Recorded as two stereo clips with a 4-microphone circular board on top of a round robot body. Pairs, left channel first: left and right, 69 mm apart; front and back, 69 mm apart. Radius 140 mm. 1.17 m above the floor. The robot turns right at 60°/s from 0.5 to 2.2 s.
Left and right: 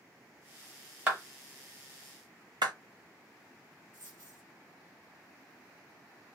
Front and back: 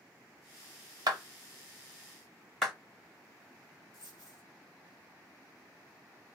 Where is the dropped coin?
50° right, 0.6 m.